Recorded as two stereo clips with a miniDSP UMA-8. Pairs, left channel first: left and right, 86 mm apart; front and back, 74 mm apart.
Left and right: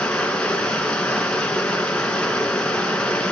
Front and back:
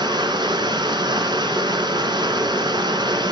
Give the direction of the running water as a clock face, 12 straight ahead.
6 o'clock.